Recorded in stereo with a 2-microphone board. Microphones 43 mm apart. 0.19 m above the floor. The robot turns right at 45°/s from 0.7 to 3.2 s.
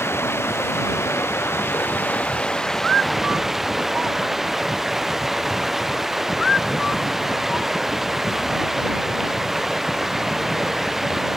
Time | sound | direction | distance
0.0 | running water | 75° left | ?